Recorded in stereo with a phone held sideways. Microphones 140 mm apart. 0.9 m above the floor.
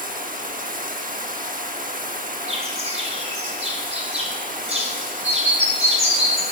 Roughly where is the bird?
Right.